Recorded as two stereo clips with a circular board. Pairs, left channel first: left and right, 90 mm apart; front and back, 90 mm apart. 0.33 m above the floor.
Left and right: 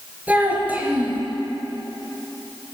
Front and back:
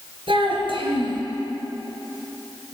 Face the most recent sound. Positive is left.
turn(degrees=-165)